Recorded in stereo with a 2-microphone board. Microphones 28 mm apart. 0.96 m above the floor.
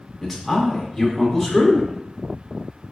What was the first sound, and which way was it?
A man speaking, 5° left (ahead or behind).